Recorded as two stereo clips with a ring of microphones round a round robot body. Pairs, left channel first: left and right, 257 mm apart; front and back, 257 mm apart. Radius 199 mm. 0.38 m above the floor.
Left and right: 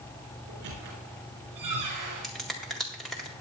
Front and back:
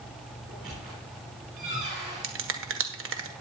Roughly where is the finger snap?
Behind.